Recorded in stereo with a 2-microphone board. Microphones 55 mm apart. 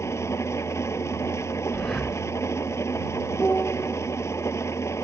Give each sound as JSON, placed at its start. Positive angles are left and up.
{"t": 0.0, "sound": "an engine running", "side_deg": 60}
{"t": 1.7, "sound": "breathing", "side_deg": 15}
{"t": 3.4, "sound": "a piano", "side_deg": 15}